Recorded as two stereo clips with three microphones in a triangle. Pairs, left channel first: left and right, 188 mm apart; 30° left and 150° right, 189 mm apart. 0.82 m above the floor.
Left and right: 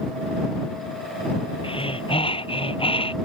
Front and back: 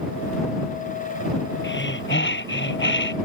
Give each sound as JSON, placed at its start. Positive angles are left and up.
{"t": 1.6, "sound": "breathing", "azimuth_deg": 30}